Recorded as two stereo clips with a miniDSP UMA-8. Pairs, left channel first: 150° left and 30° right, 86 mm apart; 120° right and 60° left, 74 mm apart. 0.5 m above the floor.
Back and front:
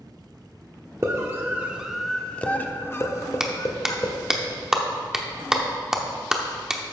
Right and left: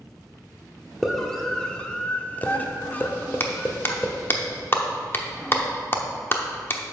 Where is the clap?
110° right, 0.9 m.